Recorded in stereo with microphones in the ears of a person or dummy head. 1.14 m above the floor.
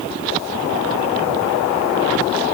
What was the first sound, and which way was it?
Only background noise.